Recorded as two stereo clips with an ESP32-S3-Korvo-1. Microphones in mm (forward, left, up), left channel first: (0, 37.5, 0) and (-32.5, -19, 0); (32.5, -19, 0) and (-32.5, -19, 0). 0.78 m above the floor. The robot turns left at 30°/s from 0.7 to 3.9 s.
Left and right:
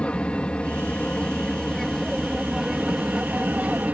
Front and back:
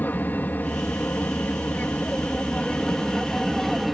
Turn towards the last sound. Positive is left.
turn(degrees=-90)